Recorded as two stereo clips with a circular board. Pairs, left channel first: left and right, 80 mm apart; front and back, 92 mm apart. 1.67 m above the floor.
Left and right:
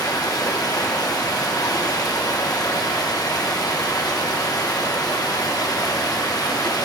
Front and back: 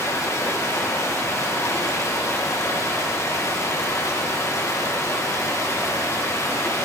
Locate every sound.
0.0 s running water: 55° left, 1.5 m